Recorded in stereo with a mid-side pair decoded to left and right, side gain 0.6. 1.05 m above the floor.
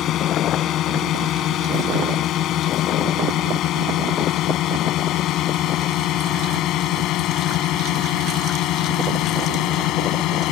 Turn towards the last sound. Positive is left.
turn(degrees=65)